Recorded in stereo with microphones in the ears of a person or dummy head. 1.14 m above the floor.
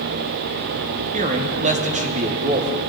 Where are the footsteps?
I don't hear footsteps.